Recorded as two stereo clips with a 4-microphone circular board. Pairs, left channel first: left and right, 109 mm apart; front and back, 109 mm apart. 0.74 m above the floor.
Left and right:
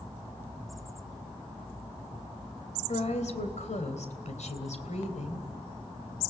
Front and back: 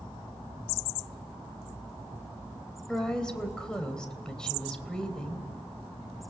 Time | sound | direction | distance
2.9 | a woman speaking | 85° left | 3 m